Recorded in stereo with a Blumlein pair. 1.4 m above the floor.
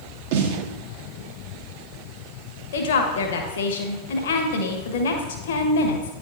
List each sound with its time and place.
0.3 s a snare drum: 50° right, 1.1 m
2.7 s a woman speaking: 55° left, 1.2 m